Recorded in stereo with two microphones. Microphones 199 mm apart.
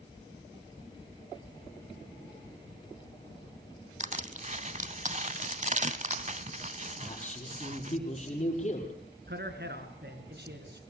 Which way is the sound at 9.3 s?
55° right (ahead or behind).